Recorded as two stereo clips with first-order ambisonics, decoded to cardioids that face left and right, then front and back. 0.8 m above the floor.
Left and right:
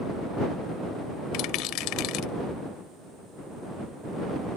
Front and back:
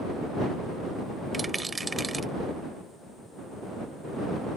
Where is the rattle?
100° left.